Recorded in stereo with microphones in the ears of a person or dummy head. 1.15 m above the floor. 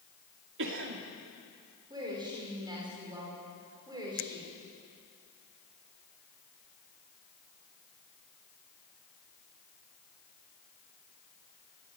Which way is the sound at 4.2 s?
75° left (ahead or behind).